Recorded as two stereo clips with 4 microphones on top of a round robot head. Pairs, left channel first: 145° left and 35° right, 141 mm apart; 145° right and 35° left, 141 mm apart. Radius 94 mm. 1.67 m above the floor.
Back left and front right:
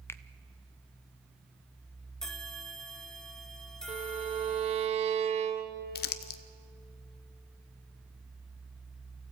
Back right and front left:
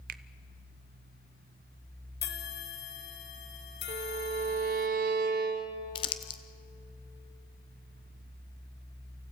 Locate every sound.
0.1 s a finger snap: 70° left, 0.5 m
2.2 s a bell: 130° right, 1.3 m
3.9 s a violin: 10° left, 1.3 m
6.0 s crumpling: 160° left, 0.7 m